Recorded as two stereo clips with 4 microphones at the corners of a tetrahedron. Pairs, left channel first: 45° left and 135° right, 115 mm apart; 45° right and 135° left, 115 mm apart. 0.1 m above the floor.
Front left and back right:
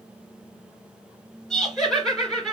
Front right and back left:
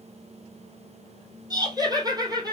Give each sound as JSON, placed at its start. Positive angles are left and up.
{"t": 1.5, "sound": "laughter", "azimuth_deg": 130, "distance_m": 1.9}